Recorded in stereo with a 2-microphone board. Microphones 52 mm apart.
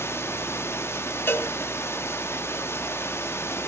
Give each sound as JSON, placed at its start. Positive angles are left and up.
{"t": 0.0, "sound": "running water", "side_deg": 55, "distance_m": 1.6}
{"t": 1.3, "sound": "a cowbell", "side_deg": 50, "distance_m": 1.5}